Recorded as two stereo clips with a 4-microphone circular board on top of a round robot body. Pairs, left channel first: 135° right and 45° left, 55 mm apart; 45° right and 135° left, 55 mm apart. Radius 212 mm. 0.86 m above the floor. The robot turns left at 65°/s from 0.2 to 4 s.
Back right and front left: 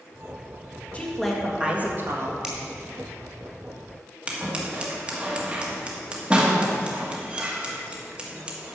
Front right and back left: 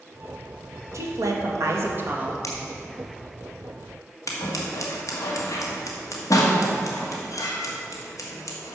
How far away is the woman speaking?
About 1.9 m.